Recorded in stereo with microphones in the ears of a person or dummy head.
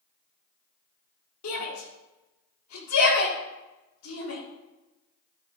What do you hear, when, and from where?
1.4 s a shout: 80° left, 3.5 m